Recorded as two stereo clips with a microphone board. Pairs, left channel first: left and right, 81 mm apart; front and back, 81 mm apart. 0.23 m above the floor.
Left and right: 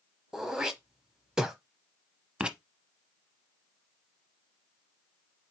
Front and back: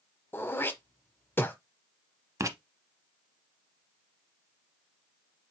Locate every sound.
0.3 s throat clearing: 15° right, 0.8 m
2.4 s writing: 165° right, 0.6 m